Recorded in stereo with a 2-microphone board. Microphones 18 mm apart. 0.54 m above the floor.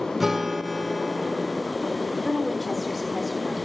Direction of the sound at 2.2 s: 45° right (ahead or behind).